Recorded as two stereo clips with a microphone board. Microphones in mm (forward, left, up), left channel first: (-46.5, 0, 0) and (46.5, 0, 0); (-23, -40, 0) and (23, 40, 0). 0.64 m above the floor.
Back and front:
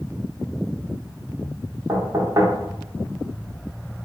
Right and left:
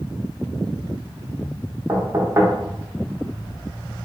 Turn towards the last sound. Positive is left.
turn(degrees=20)